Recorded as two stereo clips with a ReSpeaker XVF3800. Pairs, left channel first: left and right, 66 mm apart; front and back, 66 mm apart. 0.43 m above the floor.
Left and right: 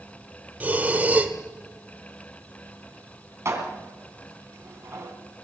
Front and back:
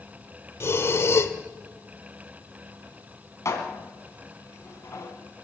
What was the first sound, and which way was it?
Breathing, 30° right.